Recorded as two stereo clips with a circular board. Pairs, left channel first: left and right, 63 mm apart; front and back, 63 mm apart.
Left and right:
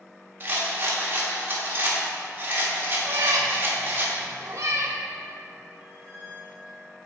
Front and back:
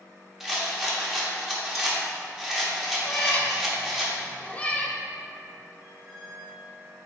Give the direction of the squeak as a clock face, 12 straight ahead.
5 o'clock.